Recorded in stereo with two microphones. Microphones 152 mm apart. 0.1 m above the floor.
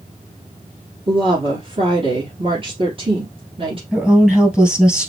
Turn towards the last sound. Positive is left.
turn(degrees=-5)  # may be behind; listen again after turning